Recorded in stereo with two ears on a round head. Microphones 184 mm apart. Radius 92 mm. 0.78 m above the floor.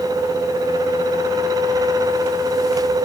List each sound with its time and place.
Only background noise.